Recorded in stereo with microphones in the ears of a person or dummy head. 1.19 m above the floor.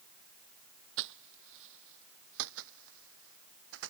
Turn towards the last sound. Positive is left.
turn(degrees=-75)  # may be behind; listen again after turning